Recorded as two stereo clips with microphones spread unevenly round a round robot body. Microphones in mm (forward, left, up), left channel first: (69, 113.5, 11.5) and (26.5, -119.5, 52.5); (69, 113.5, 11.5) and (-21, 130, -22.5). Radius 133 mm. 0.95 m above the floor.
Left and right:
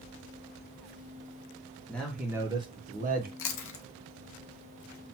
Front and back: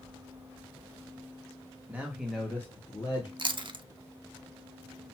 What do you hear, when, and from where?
1.9 s a man speaking: 145° left, 1.0 m; by 3.3 s 60° right, 1.0 m
3.4 s chewing: 125° left, 0.6 m